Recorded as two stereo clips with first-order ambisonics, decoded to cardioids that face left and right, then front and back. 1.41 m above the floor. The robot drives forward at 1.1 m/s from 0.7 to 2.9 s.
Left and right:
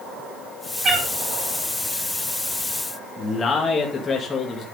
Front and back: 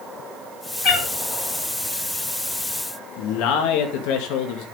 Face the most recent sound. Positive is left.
turn(degrees=20)